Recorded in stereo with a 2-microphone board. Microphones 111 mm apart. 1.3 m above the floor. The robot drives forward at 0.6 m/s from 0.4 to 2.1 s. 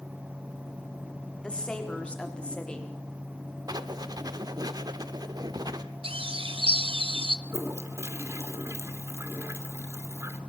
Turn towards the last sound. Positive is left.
turn(degrees=-25)  # may be behind; listen again after turning